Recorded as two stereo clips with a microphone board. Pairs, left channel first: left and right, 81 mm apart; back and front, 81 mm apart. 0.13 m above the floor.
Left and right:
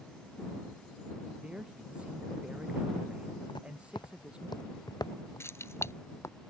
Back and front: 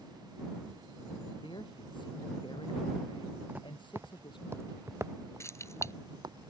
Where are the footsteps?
70° left; by 6.4 s 35° left.